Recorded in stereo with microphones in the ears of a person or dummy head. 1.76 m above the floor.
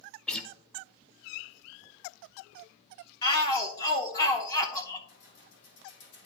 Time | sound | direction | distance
0.3 | a guitar | 10° left (ahead or behind) | 0.5 m
3.2 | a shout | 20° left (ahead or behind) | 0.7 m
5.1 | keys jangling | 75° left (ahead or behind) | 3 m